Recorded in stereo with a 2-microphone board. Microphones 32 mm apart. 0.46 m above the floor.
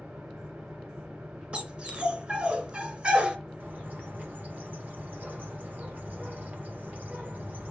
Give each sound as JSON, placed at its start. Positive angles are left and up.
{"t": 0.0, "sound": "an engine running", "side_deg": -65, "distance_m": 4.0}
{"t": 1.5, "sound": "a dog barking", "side_deg": -40, "distance_m": 2.0}
{"t": 3.6, "sound": "a bird", "side_deg": -65, "distance_m": 2.5}